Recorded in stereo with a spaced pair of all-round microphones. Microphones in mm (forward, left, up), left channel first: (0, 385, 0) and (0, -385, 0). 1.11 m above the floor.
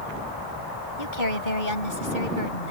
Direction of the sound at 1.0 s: 85° left.